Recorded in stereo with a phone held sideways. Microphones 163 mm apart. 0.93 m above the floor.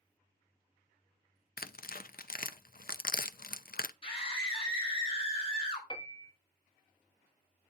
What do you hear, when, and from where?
1.6 s tearing paper: 65° left (ahead or behind), 0.5 m
4.0 s a scream: 35° left (ahead or behind), 3 m
5.9 s a piano: 30° left (ahead or behind), 1.2 m